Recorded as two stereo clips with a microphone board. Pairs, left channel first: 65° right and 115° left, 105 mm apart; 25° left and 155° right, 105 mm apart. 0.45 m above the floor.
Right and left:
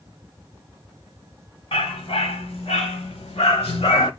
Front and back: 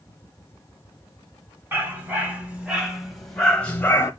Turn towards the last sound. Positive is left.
turn(degrees=-40)